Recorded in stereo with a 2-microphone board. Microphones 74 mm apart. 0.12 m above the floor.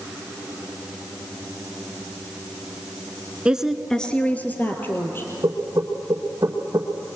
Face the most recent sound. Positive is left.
turn(degrees=-55)  # may be behind; listen again after turning